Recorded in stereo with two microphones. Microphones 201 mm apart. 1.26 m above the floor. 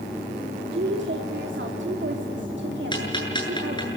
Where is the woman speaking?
65° right (ahead or behind), 2.5 m.